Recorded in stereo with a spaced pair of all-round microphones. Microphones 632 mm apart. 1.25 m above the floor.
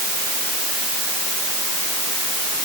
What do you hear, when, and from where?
Only background noise.